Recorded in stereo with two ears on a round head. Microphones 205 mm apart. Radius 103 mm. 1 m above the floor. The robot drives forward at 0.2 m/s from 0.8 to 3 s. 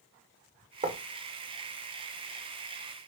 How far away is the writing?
About 0.9 m.